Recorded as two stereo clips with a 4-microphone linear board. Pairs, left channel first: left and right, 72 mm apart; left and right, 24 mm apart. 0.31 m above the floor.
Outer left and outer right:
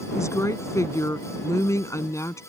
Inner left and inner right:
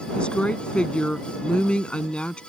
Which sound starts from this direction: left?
A woman speaking, at 0.1 s.